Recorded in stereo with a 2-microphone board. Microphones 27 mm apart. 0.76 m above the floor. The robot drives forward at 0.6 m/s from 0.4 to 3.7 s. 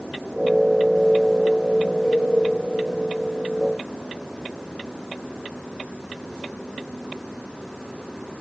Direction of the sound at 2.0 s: 20° left (ahead or behind).